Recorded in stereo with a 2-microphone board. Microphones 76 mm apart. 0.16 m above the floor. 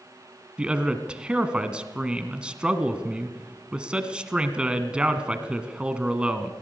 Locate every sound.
0.6 s a man speaking: 15° right (ahead or behind), 1.7 m